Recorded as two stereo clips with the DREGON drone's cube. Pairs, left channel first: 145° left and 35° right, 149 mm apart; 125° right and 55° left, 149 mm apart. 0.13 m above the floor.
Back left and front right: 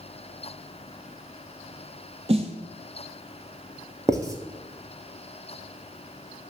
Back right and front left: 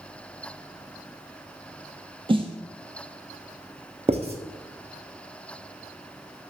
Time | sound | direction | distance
2.3 | a snare drum | 5° left | 0.7 m
4.1 | writing | 25° left | 0.8 m